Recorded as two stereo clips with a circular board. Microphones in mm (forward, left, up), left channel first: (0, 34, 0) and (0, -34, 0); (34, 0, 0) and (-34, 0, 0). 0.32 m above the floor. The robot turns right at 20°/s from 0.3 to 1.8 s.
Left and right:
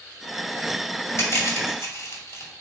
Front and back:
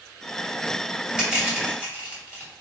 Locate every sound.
1.2 s crushing: 105° left, 2.0 m; by 2.5 s 115° left, 2.0 m